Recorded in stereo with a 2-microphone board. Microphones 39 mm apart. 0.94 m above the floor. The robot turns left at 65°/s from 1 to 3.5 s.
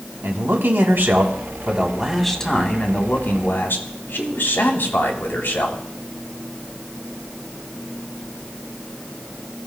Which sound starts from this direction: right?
A man speaking, at 0.2 s.